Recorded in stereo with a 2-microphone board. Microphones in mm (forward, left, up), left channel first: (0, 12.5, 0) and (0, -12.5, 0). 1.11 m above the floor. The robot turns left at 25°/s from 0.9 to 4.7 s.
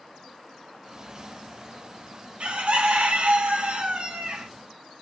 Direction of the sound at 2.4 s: 70° right.